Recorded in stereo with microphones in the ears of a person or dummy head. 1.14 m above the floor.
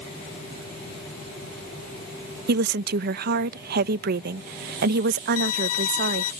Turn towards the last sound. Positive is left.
turn(degrees=85)